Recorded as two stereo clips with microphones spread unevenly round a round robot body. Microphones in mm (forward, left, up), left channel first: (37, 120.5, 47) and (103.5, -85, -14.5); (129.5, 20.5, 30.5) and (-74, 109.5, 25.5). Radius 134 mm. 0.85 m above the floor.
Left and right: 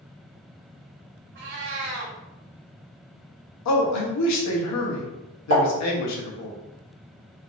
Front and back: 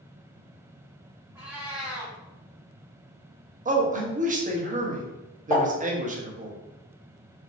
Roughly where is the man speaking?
Left.